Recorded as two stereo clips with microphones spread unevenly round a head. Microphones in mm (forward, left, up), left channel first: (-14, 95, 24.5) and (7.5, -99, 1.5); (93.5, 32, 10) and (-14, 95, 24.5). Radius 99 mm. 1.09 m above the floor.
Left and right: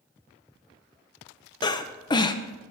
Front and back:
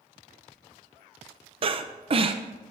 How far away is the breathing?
About 0.8 m.